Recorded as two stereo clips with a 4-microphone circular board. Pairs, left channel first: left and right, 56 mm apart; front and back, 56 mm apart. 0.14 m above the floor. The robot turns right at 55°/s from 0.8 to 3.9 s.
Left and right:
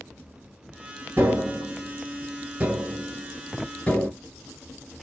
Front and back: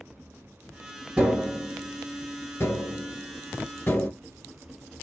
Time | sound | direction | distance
1.2 | tapping | 115° right | 1.6 m